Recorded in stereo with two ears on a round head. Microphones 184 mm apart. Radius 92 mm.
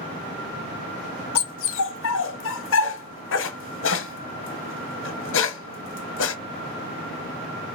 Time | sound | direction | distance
1.4 | a dog barking | 65° left (ahead or behind) | 0.7 m